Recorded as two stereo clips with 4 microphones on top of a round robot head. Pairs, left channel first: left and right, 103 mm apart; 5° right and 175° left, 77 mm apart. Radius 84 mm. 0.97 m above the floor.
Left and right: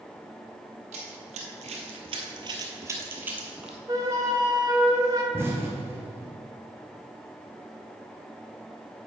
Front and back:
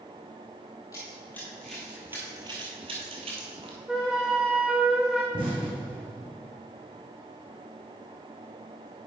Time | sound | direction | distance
0.9 | running footsteps | 75° right | 1.9 m
3.9 | a flute | 105° right | 0.6 m
5.3 | an explosion | 155° right | 3 m